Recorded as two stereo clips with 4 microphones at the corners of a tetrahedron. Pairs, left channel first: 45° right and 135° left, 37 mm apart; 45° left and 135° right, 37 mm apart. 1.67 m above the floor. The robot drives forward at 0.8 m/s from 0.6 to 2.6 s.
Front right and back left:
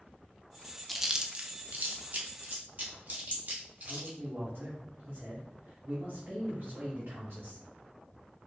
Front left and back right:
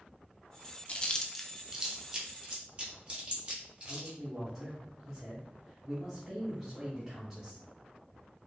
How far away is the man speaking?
About 1.5 m.